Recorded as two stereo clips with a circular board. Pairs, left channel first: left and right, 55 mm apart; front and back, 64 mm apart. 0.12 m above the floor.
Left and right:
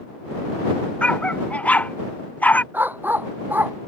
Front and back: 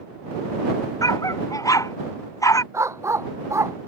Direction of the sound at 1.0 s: 20° left.